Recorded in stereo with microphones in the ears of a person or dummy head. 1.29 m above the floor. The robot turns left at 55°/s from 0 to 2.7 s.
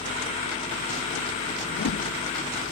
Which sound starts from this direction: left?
A whoosh, at 1.7 s.